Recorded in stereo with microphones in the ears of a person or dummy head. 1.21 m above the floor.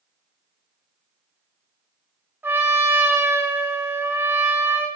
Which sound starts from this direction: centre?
A trumpet, at 2.4 s.